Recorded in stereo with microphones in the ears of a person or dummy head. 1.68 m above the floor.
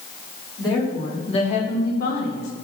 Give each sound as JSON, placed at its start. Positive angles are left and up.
{"t": 0.6, "sound": "a woman speaking", "side_deg": 25, "distance_m": 3.5}